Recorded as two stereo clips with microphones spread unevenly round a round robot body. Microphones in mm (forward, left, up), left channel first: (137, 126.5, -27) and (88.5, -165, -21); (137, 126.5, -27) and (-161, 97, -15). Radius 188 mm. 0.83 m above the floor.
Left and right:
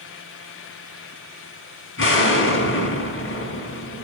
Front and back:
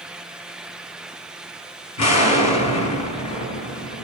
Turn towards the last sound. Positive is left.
turn(degrees=35)